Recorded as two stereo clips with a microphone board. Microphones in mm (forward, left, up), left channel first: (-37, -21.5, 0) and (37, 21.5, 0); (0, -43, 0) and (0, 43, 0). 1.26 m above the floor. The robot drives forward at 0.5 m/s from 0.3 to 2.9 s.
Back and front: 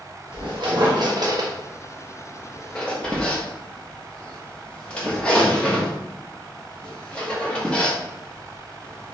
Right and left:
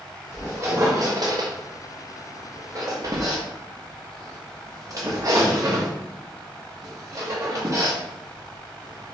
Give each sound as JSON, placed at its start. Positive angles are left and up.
{"t": 0.3, "sound": "a squeak", "azimuth_deg": 35, "distance_m": 1.0}